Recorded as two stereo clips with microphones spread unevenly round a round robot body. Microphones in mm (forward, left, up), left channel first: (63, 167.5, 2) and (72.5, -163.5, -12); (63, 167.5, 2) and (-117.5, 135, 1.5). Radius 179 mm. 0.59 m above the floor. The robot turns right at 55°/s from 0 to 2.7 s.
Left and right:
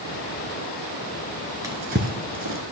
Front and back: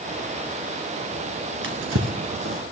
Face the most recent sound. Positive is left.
turn(degrees=-115)